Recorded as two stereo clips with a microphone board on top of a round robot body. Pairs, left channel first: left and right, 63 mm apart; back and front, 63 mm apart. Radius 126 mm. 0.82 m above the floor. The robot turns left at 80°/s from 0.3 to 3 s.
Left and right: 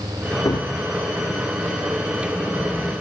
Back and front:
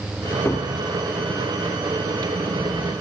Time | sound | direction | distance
0.5 | a cupboard door | 125° left | 0.8 m